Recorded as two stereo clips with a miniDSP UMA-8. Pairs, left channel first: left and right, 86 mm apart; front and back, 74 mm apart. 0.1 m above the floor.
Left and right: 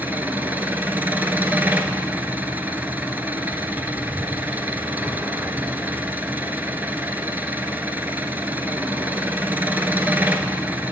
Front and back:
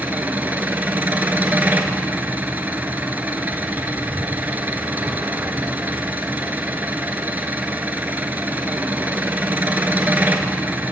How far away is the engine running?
About 0.8 m.